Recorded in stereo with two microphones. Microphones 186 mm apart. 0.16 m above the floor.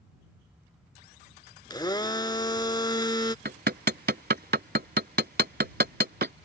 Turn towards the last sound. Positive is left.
turn(degrees=-65)  # may be behind; listen again after turning